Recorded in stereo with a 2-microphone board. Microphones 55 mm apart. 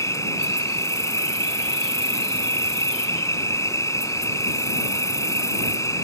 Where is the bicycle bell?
I don't hear a bicycle bell.